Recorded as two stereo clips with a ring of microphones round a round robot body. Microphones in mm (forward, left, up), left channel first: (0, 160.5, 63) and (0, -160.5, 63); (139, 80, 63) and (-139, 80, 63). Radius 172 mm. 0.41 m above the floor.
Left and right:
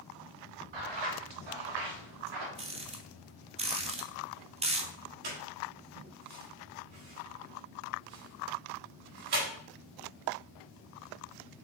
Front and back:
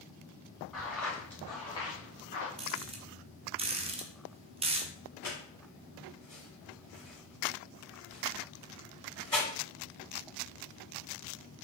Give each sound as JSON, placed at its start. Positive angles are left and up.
{"t": 0.7, "sound": "footsteps", "azimuth_deg": -90, "distance_m": 4.0}
{"t": 2.6, "sound": "a rattle", "azimuth_deg": -140, "distance_m": 0.9}
{"t": 5.2, "sound": "a squeak", "azimuth_deg": -85, "distance_m": 4.0}